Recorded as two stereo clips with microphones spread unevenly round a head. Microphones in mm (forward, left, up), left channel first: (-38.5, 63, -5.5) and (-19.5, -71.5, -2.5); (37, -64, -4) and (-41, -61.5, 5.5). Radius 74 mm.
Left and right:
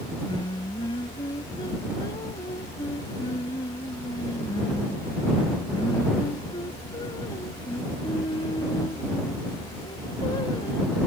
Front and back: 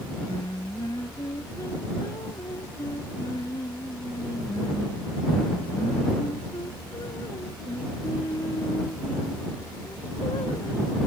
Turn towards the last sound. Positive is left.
turn(degrees=45)